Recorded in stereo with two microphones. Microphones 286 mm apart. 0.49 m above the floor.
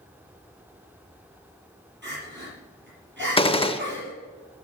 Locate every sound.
2.0 s crying: 40° right (ahead or behind), 5.5 m
3.4 s a gunshot: 20° left (ahead or behind), 0.5 m